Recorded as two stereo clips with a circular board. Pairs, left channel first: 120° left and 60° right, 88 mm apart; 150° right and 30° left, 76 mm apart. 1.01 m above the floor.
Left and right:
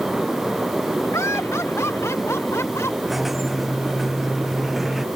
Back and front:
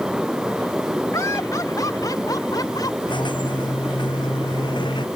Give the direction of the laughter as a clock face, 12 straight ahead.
6 o'clock.